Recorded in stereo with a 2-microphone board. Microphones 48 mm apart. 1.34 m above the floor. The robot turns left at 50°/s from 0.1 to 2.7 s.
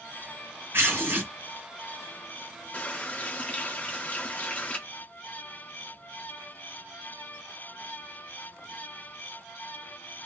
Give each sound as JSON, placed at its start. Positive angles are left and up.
{"t": 0.7, "sound": "tearing paper", "side_deg": -60, "distance_m": 2.5}
{"t": 2.7, "sound": "a running tap", "side_deg": 25, "distance_m": 1.2}